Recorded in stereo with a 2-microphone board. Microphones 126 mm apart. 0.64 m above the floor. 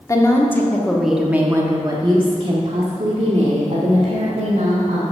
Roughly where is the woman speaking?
Left.